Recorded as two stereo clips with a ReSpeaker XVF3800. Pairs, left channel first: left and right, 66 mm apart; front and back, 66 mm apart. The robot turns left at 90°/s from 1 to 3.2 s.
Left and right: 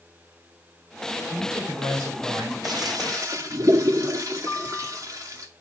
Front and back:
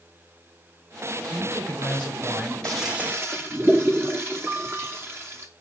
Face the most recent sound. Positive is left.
turn(degrees=130)